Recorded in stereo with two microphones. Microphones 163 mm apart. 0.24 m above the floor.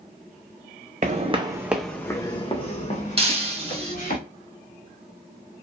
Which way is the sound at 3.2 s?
35° right (ahead or behind).